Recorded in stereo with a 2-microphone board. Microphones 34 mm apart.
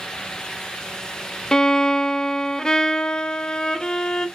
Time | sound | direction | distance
1.5 | a violin | 15° left (ahead or behind) | 0.8 m